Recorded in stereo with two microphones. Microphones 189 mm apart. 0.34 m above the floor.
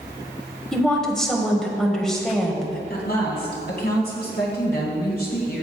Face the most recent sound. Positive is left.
turn(degrees=60)  # may be behind; listen again after turning